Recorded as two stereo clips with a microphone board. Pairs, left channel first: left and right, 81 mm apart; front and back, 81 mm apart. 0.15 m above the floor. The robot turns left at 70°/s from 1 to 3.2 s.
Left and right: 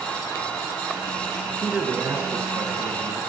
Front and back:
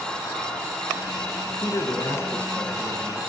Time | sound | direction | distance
1.6 | a man speaking | 5° left | 2 m